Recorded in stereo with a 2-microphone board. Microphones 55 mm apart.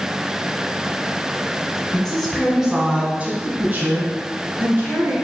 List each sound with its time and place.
1.9 s a woman speaking: 15° left (ahead or behind), 1.1 m; by 5.1 s 50° right (ahead or behind), 2.5 m